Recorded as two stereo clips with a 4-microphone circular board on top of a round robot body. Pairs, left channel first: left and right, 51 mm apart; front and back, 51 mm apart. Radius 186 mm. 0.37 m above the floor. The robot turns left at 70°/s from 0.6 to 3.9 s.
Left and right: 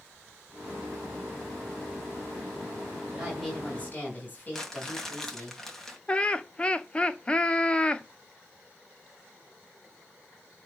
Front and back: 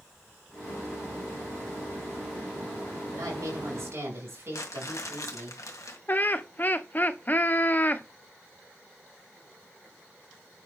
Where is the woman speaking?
160° right, 6 m; by 5.5 s 145° left, 6 m.